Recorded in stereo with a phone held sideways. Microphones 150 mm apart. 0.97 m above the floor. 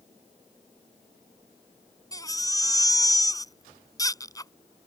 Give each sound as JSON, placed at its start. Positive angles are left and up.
{"t": 2.1, "sound": "a baby crying", "side_deg": 25}